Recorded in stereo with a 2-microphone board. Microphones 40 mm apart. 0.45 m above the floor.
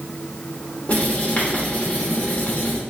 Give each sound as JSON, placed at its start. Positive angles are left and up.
{"t": 0.9, "sound": "writing", "side_deg": 40, "distance_m": 1.0}